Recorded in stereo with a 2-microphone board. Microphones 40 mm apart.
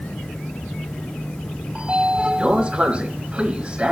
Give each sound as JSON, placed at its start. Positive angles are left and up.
{"t": 1.8, "sound": "a sliding door", "side_deg": -30, "distance_m": 1.4}